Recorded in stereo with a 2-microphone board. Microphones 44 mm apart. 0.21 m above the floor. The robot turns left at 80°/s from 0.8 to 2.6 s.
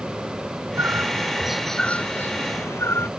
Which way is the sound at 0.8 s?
115° right.